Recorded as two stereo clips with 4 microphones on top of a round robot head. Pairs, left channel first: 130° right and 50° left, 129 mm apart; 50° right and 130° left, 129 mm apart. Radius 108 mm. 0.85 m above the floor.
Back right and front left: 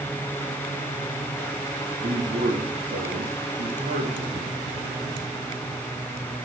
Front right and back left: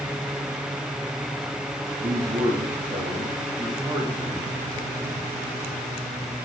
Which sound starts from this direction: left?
A man speaking, at 2.0 s.